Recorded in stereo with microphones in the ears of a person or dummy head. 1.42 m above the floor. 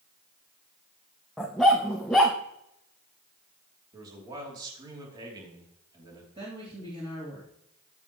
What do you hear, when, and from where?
1.4 s a dog barking: centre (ahead or behind), 0.8 m
3.9 s a man speaking: 25° right (ahead or behind), 3 m
6.3 s a woman speaking: 30° right (ahead or behind), 3 m